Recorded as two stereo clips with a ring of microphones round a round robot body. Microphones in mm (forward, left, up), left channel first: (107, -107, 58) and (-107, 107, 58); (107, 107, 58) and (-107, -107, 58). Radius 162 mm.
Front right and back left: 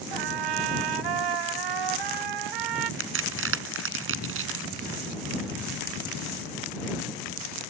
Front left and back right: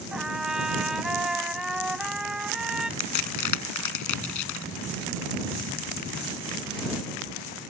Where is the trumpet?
135° left.